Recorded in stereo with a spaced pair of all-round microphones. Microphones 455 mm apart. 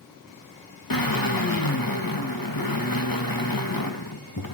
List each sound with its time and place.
0.9 s a drill: 45° left (ahead or behind), 1.8 m